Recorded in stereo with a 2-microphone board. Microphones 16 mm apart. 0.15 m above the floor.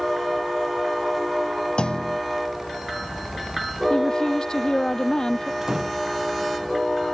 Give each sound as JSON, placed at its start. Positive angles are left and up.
{"t": 1.8, "sound": "a clunk", "side_deg": 80}
{"t": 3.9, "sound": "a woman speaking", "side_deg": 55}
{"t": 5.6, "sound": "a door slam", "side_deg": -40}